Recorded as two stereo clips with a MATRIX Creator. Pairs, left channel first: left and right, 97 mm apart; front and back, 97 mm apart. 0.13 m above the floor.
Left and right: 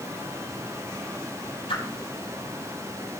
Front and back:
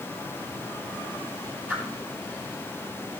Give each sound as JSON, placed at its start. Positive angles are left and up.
{"t": 1.7, "sound": "a whoosh", "azimuth_deg": 110, "distance_m": 3.5}